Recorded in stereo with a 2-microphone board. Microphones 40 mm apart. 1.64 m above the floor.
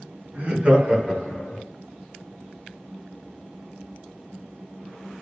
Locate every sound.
0.3 s laughter: 30° right (ahead or behind), 1.9 m; by 1.6 s 35° left (ahead or behind), 0.8 m